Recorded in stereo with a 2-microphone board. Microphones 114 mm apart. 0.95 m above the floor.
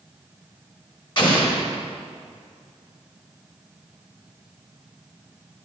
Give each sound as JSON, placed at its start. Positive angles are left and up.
{"t": 1.2, "sound": "an explosion", "side_deg": 40, "distance_m": 1.5}